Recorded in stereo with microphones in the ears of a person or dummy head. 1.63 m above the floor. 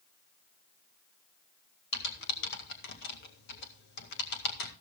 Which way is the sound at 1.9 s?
60° left (ahead or behind).